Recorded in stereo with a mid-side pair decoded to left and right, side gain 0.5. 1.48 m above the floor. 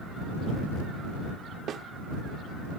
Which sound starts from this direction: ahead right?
A snare drum, at 1.7 s.